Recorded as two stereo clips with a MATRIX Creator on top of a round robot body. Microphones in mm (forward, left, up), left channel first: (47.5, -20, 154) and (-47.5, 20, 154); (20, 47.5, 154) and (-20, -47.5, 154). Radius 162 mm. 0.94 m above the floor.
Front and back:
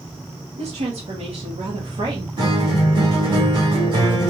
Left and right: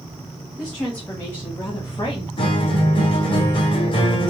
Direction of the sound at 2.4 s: 110° left.